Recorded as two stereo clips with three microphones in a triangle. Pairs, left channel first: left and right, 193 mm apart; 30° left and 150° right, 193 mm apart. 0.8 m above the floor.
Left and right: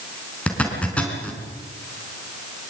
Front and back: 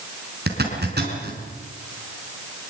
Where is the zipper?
175° left, 4.5 m.